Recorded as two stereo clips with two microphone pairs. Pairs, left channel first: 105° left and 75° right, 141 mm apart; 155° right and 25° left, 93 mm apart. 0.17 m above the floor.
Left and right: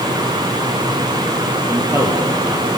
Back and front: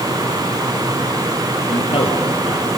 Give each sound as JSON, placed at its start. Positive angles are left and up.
{"t": 1.7, "sound": "a man speaking", "azimuth_deg": -145, "distance_m": 3.5}